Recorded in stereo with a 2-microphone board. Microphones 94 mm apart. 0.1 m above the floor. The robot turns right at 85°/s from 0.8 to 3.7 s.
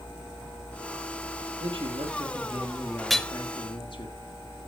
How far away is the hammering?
About 0.6 m.